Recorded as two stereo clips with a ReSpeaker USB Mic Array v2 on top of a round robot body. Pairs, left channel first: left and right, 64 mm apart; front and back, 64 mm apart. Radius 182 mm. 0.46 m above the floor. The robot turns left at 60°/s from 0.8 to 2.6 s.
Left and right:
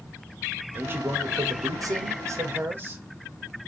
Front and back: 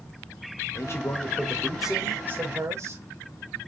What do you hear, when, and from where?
0.8 s a man speaking: 35° right, 2.5 m; by 3.0 s 140° right, 2.5 m